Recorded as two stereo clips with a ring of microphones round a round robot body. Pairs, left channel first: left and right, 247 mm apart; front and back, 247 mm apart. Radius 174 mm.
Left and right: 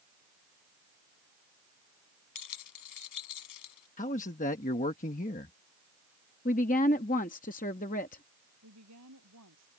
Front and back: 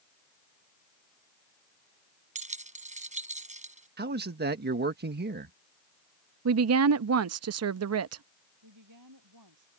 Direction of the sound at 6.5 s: 155° left.